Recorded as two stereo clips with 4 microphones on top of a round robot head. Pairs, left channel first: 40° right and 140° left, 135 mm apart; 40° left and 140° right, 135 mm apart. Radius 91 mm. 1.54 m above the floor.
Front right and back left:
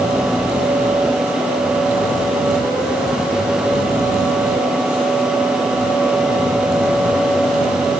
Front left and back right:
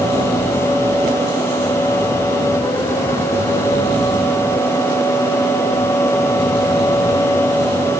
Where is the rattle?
No rattle in this recording.